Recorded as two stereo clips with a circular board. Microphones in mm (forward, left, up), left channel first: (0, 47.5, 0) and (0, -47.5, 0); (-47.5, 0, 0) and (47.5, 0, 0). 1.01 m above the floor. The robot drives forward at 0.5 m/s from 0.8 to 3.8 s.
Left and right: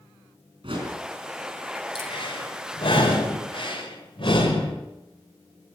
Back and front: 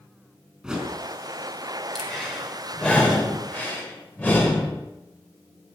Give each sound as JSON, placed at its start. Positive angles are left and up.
{"t": 0.6, "sound": "a whoosh", "azimuth_deg": -80, "distance_m": 4.0}
{"t": 1.9, "sound": "breathing", "azimuth_deg": 95, "distance_m": 3.5}